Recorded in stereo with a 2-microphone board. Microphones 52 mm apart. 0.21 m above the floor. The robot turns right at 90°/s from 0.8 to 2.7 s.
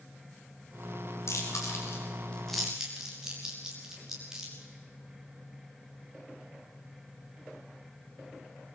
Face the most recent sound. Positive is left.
turn(degrees=-10)  # may be behind; listen again after turning